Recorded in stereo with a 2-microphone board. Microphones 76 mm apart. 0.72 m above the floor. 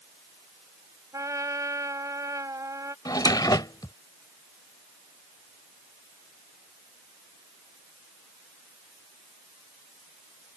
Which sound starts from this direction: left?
A drawer, at 3.0 s.